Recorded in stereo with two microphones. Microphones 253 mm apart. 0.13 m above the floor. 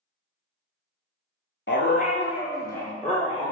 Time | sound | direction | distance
1.7 | a dog barking | 50° left (ahead or behind) | 0.6 m